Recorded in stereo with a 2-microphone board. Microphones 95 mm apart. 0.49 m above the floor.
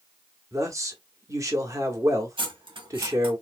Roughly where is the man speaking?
Right.